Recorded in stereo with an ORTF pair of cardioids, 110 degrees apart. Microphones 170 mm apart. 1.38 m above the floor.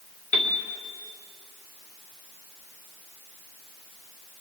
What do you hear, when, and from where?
0.3 s a piano: 45° left, 1.7 m